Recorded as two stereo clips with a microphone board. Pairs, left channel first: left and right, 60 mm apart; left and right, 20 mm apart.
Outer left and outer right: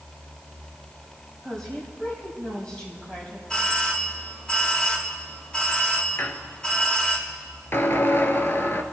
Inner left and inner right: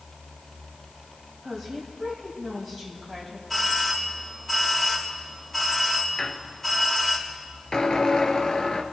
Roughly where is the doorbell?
Centre.